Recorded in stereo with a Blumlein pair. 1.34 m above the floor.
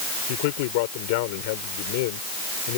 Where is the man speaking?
50° left.